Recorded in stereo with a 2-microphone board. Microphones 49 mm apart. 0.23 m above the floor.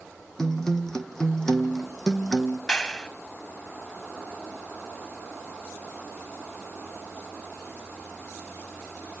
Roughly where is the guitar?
Centre.